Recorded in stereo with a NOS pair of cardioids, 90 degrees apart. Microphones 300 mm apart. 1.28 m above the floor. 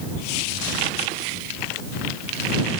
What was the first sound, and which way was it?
Only background noise.